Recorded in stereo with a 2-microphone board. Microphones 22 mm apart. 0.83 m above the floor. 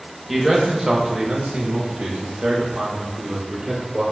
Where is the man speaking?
5° right (ahead or behind), 0.9 m; by 4.0 s 55° right (ahead or behind), 2.0 m.